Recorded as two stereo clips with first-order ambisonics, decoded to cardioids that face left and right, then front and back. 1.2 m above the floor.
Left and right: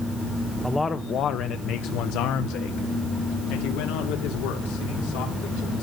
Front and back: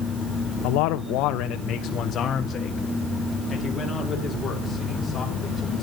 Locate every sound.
0.6 s a man speaking: 5° left, 0.7 m; by 5.8 s 85° left, 3.5 m